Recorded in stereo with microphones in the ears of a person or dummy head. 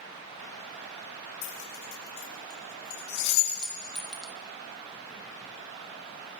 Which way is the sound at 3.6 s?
Centre (ahead or behind).